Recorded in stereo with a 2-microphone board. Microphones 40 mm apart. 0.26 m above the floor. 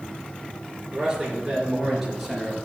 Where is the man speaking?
20° right (ahead or behind), 3.5 m; by 2.6 s 5° right (ahead or behind), 3.5 m.